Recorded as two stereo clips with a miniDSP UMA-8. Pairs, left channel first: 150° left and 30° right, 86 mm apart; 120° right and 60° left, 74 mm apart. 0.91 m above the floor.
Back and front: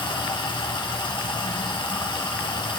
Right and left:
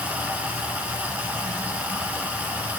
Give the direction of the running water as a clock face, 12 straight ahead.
8 o'clock.